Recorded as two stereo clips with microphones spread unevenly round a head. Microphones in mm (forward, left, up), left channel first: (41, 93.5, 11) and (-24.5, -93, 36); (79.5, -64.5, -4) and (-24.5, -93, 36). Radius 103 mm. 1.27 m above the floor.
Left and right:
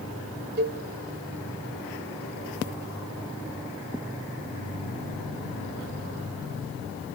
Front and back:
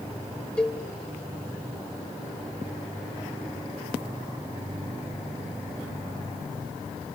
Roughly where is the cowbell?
Right.